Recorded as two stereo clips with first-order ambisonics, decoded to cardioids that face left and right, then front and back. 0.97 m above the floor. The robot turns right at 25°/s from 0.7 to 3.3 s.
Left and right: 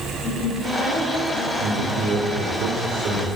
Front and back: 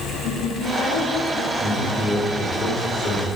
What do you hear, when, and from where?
0.2 s a woman speaking: 25° left, 3.5 m; by 2.6 s 75° left, 3.5 m
1.6 s a man speaking: 90° right, 2 m; by 3.3 s 45° right, 2 m